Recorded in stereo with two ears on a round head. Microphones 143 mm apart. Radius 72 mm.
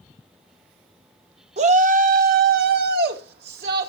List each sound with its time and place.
1.6 s a shout: 40° right (ahead or behind), 1.1 m; by 3.9 s 70° right (ahead or behind), 2.5 m